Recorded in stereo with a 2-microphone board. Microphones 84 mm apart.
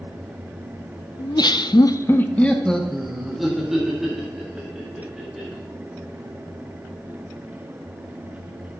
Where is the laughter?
50° left (ahead or behind), 0.7 m; by 5.6 s 10° right (ahead or behind), 3.5 m.